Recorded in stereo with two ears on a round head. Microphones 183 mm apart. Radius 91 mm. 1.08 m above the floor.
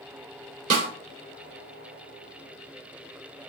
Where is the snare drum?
40° right (ahead or behind), 3 m.